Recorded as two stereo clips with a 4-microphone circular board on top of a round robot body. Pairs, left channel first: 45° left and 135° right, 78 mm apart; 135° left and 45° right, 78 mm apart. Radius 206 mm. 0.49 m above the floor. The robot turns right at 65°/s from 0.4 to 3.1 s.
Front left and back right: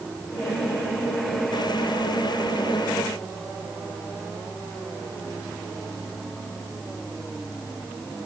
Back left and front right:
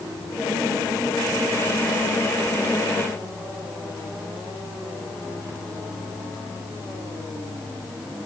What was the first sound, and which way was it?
Only background noise.